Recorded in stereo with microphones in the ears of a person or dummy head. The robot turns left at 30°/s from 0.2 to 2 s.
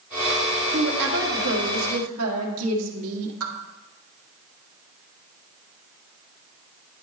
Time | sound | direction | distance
0.7 | a woman speaking | 50° right | 1.5 m